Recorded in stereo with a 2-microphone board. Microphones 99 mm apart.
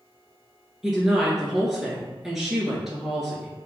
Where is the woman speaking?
5° right (ahead or behind), 1.3 m.